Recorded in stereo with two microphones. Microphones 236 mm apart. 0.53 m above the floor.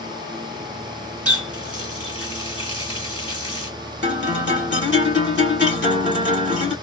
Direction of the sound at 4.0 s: 50° left (ahead or behind).